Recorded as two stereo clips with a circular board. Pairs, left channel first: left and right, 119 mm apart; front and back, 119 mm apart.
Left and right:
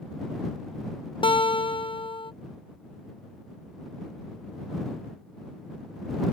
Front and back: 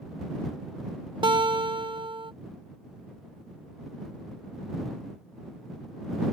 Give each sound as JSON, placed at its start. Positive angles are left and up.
{"t": 1.2, "sound": "a guitar", "azimuth_deg": 135}